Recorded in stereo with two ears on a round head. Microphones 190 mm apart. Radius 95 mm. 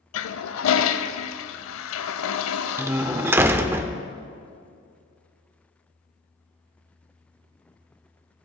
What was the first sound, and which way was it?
A toilet flushing, 70° left (ahead or behind).